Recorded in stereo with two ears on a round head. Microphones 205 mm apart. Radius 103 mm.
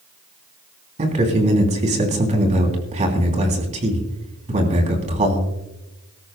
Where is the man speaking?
30° right (ahead or behind), 3 m.